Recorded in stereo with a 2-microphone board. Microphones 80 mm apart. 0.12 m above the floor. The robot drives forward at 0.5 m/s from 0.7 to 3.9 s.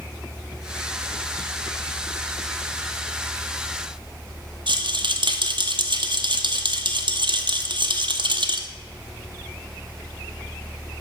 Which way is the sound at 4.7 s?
75° right (ahead or behind).